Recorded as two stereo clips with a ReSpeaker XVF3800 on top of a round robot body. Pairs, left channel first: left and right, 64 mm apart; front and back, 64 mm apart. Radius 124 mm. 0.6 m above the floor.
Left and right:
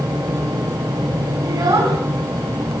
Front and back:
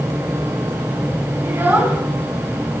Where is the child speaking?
120° right, 4.5 m.